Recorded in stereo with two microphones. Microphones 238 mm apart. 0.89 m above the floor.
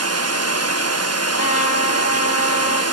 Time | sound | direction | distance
0.0 | running water | 75° right (ahead or behind) | 1.0 m
1.4 | a trumpet | 75° left (ahead or behind) | 2.5 m